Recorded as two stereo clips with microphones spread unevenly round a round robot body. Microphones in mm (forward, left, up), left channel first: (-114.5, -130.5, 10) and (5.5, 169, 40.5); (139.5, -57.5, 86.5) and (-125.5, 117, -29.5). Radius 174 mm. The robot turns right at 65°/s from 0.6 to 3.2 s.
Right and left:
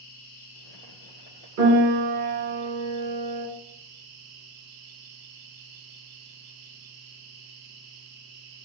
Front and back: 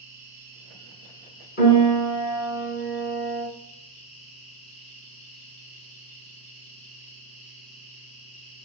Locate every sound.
0.0 s an insect: 130° right, 1.0 m; by 8.7 s 40° left, 1.0 m
1.6 s a piano: 25° left, 1.6 m; by 3.5 s 135° left, 1.6 m